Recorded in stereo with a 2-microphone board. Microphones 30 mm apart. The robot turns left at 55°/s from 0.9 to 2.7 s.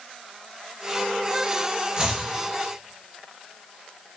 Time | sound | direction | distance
2.0 | chopping | 25° right (ahead or behind) | 1.7 m